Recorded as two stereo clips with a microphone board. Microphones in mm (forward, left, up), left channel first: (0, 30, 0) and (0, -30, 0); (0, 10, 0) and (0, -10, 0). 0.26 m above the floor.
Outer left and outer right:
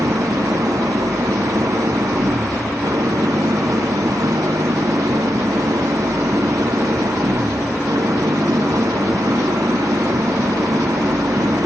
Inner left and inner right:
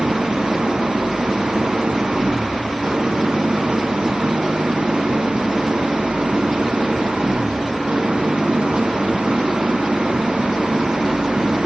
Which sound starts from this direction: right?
An engine running, at 0.0 s.